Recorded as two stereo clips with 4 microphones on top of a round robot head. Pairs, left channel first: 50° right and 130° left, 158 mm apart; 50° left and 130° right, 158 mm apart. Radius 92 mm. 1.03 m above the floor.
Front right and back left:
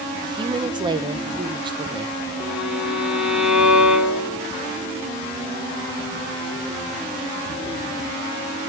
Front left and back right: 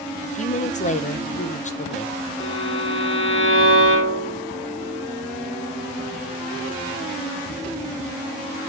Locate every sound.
0.2 s a woman speaking: 75° left, 0.7 m
2.4 s a violin: 40° left, 1.3 m